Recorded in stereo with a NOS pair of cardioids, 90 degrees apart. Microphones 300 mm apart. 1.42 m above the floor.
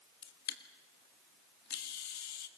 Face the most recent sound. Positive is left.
turn(degrees=70)